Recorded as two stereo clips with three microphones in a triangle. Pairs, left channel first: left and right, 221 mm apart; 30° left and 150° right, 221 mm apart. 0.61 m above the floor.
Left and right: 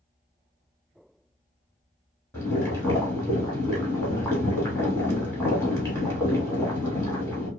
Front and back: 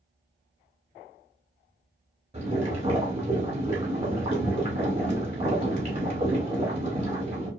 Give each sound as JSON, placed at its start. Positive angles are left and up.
{"t": 2.3, "sound": "boiling", "azimuth_deg": 160, "distance_m": 1.4}